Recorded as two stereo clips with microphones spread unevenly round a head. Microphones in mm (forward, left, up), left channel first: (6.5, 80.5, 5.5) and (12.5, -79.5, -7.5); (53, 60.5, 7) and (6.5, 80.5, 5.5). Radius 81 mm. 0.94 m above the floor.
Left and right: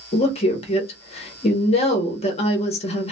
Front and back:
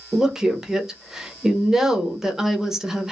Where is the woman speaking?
90° left, 0.7 m.